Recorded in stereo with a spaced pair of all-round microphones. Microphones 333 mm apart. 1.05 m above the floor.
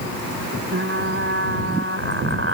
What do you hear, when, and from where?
0.7 s frying: 40° right (ahead or behind)